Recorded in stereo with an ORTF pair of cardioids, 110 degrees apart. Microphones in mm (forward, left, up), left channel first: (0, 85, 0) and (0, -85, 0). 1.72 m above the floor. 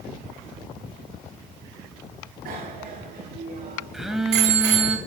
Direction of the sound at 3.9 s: Straight ahead.